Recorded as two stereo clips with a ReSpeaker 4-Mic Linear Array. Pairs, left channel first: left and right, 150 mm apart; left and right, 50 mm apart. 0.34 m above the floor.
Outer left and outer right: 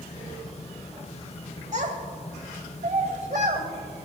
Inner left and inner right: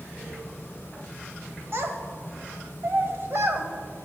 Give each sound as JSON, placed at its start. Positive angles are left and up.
{"t": 1.7, "sound": "a child speaking", "side_deg": -50, "distance_m": 1.1}